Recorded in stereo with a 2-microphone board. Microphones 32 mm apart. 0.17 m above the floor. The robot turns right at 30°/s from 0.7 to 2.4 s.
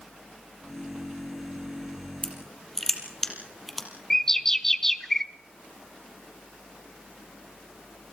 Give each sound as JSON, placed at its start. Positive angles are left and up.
{"t": 2.2, "sound": "crushing", "side_deg": 15, "distance_m": 4.5}
{"t": 4.1, "sound": "a bird", "side_deg": 15, "distance_m": 1.0}